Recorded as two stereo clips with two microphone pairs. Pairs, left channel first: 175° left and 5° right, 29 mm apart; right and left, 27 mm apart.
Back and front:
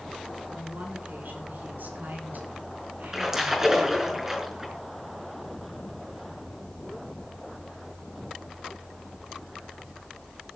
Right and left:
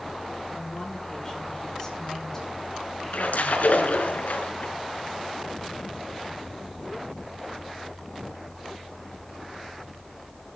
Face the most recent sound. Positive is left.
turn(degrees=-80)